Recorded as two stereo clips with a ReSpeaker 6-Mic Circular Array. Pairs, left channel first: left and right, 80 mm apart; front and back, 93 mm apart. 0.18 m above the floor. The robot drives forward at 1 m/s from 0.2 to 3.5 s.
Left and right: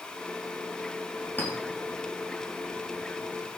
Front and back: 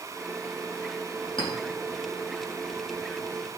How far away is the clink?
About 5 m.